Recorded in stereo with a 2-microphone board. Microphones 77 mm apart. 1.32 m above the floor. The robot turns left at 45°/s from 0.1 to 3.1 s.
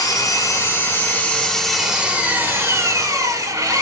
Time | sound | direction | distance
0.0 | an engine running | 75° left | 1.4 m